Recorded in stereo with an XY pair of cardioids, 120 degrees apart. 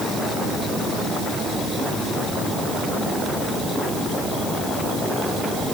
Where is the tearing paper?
I don't hear tearing paper.